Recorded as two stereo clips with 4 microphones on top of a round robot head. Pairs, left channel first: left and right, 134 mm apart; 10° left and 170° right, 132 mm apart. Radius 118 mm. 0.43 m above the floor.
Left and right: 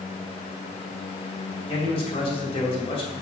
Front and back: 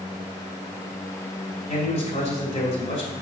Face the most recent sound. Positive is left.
turn(degrees=45)